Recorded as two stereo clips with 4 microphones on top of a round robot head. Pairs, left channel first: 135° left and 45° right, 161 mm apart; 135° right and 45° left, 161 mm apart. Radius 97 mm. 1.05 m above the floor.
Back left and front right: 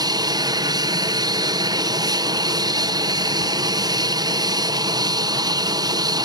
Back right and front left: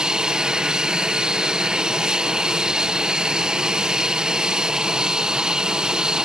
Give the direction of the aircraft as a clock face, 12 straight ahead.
1 o'clock.